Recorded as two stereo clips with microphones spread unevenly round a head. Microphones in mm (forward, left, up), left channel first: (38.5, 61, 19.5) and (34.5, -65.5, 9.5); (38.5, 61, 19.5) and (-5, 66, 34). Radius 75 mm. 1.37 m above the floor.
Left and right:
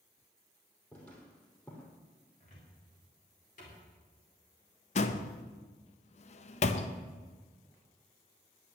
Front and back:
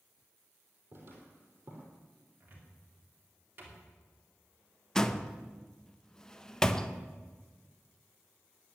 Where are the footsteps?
165° left, 3 m.